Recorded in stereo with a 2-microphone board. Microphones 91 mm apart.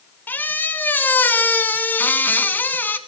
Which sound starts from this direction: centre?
A squeak, at 0.3 s.